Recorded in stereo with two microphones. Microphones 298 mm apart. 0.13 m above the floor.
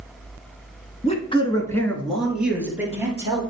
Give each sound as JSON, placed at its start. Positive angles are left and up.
{"t": 1.0, "sound": "a man speaking", "side_deg": 20, "distance_m": 1.1}